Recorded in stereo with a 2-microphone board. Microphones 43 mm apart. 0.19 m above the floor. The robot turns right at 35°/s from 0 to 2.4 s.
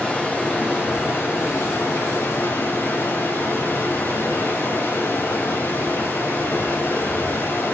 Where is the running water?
20° left, 7.5 m; by 7.7 s 105° left, 7.5 m.